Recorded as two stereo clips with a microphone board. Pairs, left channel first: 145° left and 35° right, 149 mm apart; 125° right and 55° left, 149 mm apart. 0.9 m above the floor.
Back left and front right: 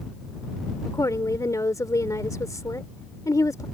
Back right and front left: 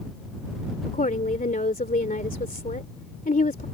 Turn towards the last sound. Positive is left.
turn(degrees=-150)